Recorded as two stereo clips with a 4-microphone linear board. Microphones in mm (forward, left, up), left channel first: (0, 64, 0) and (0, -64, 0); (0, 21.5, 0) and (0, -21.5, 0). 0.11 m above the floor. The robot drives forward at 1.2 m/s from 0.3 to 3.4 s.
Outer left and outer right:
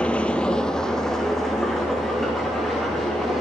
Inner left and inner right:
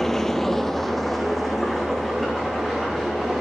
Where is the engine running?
10° left (ahead or behind), 0.8 m; by 3.4 s centre (ahead or behind), 4.5 m.